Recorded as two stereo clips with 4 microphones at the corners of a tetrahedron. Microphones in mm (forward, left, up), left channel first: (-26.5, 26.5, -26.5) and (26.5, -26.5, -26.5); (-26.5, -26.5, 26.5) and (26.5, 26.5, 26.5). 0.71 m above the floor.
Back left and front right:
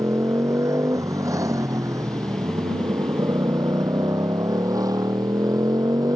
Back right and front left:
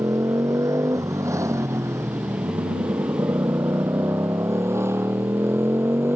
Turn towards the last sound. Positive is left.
turn(degrees=-10)